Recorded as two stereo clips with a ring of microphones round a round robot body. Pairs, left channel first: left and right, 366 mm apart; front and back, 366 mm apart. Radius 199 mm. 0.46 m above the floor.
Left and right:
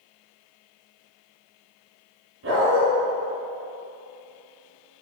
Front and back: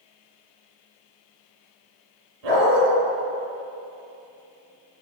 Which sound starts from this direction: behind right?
A dog barking, at 2.4 s.